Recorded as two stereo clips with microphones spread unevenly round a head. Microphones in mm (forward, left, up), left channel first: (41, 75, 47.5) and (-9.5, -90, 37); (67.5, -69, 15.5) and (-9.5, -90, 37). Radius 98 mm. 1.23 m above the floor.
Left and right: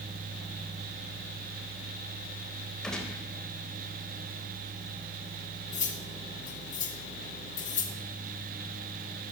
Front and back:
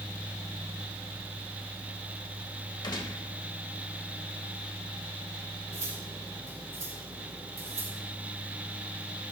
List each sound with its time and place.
2.8 s a gunshot: 15° right, 4 m
5.7 s cutlery clinking: 125° left, 1.8 m